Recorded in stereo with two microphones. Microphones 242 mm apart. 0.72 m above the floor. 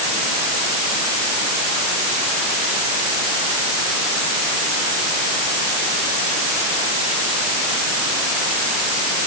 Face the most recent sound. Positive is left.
No sound to turn to.